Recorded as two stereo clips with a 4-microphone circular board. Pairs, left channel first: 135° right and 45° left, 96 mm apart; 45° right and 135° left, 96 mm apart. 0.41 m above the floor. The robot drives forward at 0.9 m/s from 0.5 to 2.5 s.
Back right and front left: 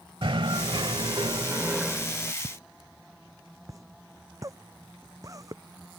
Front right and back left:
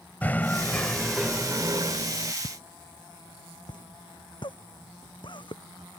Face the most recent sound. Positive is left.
turn(degrees=-10)